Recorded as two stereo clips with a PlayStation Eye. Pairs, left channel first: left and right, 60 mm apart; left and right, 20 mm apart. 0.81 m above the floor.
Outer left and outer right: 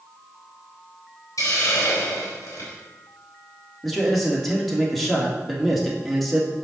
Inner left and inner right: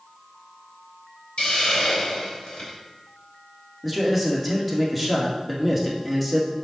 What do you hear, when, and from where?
1.4 s a hiss: 70° left (ahead or behind), 3.5 m
3.8 s a man speaking: centre (ahead or behind), 2.0 m